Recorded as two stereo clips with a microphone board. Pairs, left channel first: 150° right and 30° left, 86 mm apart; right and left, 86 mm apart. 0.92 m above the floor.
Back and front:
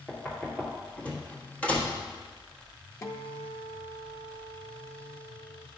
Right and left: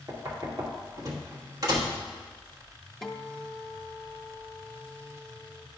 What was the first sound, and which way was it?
Knocking, 135° left.